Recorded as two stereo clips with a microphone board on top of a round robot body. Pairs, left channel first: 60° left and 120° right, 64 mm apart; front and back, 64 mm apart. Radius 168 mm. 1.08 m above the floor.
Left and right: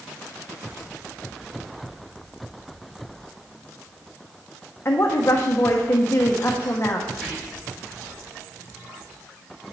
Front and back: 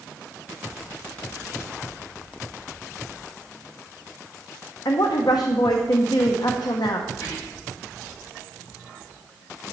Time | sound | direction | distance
4.8 | a woman speaking | 10° left | 1.0 m
7.1 | whispering | 35° right | 3 m